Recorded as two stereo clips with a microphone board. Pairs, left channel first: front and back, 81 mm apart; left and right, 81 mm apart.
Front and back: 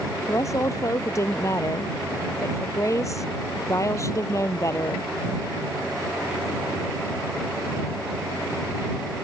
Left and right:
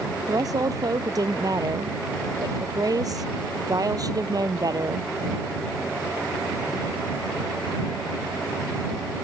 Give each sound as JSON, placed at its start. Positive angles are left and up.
{"t": 0.3, "sound": "a woman speaking", "azimuth_deg": -50}